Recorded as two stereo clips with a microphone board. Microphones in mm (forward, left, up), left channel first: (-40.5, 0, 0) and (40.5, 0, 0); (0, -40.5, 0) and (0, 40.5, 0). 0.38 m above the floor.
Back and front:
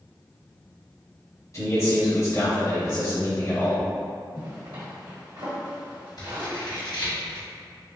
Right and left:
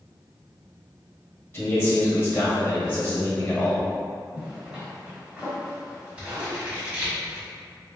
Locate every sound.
1.5 s a man speaking: 145° right, 1.9 m
4.3 s a zipper: 15° left, 1.3 m
6.2 s scissors: 165° left, 1.5 m